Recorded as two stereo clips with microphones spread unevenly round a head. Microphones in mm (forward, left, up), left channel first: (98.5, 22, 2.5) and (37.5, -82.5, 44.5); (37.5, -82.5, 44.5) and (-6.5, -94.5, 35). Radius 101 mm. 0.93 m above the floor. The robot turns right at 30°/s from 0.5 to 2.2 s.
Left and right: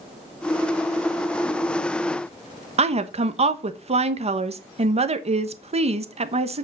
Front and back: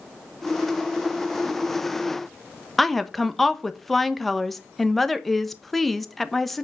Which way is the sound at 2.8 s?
80° right.